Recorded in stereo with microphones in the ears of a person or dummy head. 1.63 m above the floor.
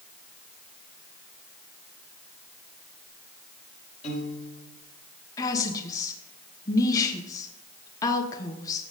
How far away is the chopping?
No chopping in this recording.